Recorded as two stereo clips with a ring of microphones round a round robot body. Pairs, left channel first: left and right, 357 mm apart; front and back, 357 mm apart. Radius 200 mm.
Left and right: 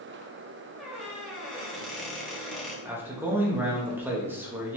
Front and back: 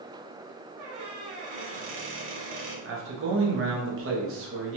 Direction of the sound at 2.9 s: 170° right.